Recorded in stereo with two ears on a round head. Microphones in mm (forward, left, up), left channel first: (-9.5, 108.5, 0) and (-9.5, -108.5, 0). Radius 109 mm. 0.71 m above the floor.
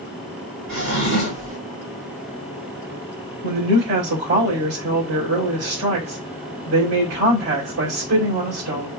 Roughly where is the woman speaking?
Right.